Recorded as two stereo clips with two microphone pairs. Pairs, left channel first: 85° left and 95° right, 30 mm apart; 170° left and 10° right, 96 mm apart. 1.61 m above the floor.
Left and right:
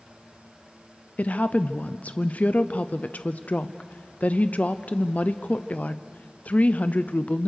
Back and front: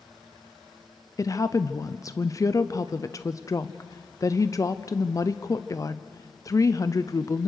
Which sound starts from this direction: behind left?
A woman speaking, at 1.2 s.